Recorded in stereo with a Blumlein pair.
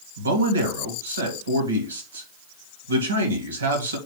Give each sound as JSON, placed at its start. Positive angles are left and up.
{"t": 0.2, "sound": "a man speaking", "azimuth_deg": -70, "distance_m": 2.0}